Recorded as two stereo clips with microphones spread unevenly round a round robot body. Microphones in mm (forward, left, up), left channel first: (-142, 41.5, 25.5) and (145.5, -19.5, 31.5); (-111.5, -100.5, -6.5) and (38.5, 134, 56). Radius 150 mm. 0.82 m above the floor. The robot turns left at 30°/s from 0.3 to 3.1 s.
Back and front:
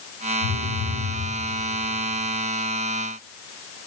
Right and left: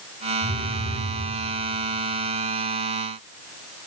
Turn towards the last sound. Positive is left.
turn(degrees=60)